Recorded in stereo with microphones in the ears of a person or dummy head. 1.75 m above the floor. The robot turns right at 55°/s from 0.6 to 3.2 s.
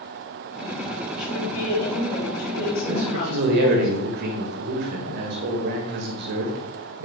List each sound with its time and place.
1.2 s a woman speaking: 5° right, 4 m; by 3.9 s 105° left, 4 m
2.9 s a man speaking: 40° right (ahead or behind), 1.8 m; by 7.1 s 55° right (ahead or behind), 1.8 m